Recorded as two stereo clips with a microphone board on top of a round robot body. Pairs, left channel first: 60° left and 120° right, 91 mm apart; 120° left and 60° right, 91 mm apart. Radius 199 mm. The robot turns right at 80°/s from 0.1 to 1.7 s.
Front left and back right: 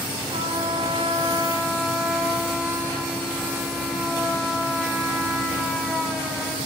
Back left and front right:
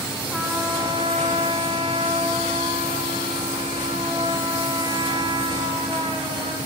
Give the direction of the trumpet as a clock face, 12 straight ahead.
5 o'clock.